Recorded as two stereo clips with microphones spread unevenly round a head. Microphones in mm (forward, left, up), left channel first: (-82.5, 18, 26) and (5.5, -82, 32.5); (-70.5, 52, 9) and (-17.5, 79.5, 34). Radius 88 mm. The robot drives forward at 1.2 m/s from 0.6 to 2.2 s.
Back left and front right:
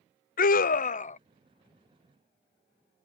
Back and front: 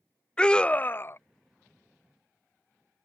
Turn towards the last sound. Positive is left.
turn(degrees=170)